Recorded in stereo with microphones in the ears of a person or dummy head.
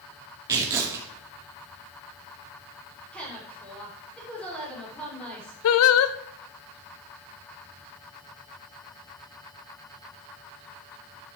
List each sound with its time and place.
0.5 s tearing paper: 15° right (ahead or behind), 2 m
3.1 s a woman speaking: 5° left (ahead or behind), 6.5 m
5.6 s singing: 75° left (ahead or behind), 0.6 m